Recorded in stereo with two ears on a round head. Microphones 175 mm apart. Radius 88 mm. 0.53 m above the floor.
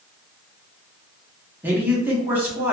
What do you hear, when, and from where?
1.6 s a man speaking: 10° right (ahead or behind), 0.6 m